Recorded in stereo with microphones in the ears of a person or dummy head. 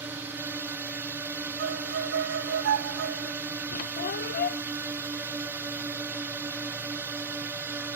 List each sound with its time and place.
0.0 s a drone: 15° right (ahead or behind)
1.6 s a violin: 65° right (ahead or behind)
3.7 s a squeak: 50° left (ahead or behind)